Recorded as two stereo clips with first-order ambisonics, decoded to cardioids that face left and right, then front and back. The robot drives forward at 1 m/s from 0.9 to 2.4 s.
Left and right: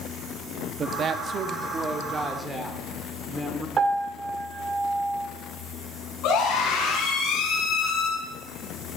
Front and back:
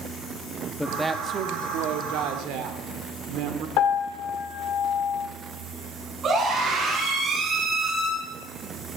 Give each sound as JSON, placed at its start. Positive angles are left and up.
{"t": 0.8, "sound": "a woman speaking", "azimuth_deg": -85, "distance_m": 0.7}
{"t": 3.8, "sound": "a piano", "azimuth_deg": -25, "distance_m": 1.3}
{"t": 6.2, "sound": "a scream", "azimuth_deg": 120, "distance_m": 5.5}